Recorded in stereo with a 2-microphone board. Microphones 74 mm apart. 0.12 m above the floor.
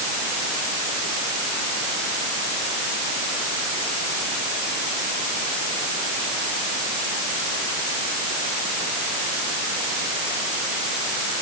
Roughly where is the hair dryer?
I don't hear a hair dryer.